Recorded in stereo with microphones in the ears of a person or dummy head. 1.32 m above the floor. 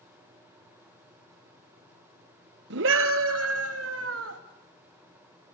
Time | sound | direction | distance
2.7 | a scream | 65° right (ahead or behind) | 1.3 m